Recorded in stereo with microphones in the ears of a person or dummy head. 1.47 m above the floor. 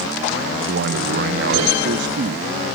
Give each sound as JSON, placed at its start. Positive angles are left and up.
{"t": 0.7, "sound": "a man speaking", "side_deg": -65, "distance_m": 0.7}